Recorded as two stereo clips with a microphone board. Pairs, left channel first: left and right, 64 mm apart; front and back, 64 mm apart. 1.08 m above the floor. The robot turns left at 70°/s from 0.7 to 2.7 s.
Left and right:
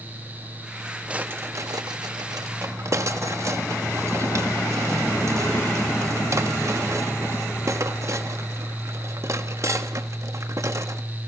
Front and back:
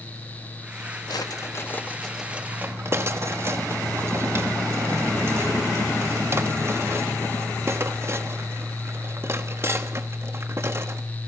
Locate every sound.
1.1 s a drawer: 15° right, 1.0 m; by 11.0 s 130° right, 1.0 m